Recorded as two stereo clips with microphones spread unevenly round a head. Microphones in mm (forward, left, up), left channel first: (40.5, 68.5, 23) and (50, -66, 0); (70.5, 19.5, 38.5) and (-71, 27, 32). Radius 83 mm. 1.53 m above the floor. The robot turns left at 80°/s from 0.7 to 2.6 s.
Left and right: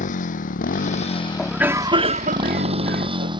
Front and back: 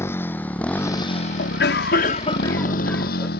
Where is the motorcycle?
70° left; by 3.4 s 30° right.